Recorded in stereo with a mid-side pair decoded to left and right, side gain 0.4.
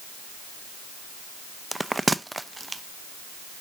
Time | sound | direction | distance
1.7 | a bell | 15° right | 0.7 m